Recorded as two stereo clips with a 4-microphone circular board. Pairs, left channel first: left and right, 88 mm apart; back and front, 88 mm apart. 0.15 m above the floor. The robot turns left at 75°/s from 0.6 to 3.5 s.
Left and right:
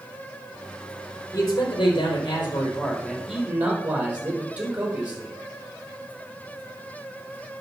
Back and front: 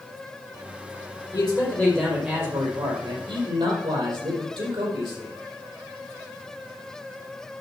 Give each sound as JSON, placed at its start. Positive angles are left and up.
{"t": 1.3, "sound": "a man speaking", "azimuth_deg": 145, "distance_m": 4.0}